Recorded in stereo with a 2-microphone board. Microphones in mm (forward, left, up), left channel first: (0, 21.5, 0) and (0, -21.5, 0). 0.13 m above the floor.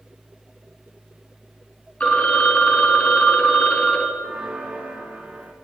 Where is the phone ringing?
30° left (ahead or behind), 1.2 m.